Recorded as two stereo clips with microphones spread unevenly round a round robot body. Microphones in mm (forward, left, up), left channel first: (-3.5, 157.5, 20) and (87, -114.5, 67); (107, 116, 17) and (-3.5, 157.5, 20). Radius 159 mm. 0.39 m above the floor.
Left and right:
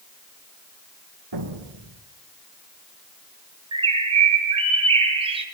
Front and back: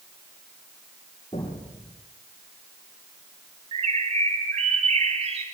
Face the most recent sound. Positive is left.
turn(degrees=-145)